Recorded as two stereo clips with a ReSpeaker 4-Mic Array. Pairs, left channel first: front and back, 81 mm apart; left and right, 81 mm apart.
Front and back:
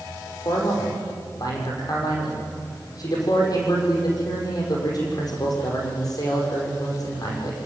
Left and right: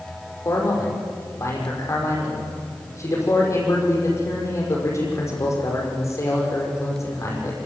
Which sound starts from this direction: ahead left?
A man speaking, at 0.5 s.